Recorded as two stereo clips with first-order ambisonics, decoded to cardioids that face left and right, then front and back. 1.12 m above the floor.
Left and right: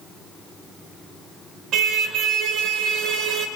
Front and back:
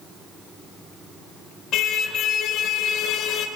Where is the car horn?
45° right, 2.5 m.